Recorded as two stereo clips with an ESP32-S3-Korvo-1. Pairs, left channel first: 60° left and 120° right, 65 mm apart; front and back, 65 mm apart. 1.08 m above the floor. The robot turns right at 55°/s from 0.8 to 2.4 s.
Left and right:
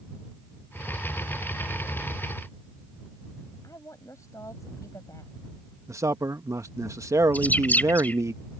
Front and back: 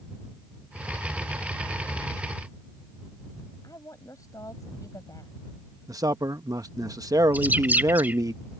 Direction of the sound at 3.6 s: 30° left.